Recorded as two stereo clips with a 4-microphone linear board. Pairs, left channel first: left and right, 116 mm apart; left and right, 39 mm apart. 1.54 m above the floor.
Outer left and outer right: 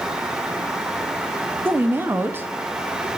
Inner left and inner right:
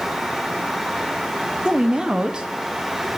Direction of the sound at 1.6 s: 20° right (ahead or behind).